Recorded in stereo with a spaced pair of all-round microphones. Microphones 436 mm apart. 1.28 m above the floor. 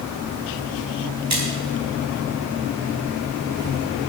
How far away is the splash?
About 4.5 m.